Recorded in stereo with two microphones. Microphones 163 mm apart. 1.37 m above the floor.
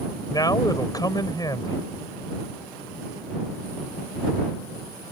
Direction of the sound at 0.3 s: 25° left (ahead or behind).